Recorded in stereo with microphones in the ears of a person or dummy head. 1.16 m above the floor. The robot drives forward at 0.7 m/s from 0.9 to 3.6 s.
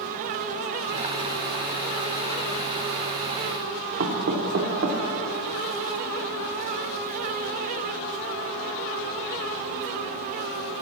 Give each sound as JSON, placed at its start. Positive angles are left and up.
{"t": 4.0, "sound": "knocking", "side_deg": -65, "distance_m": 0.7}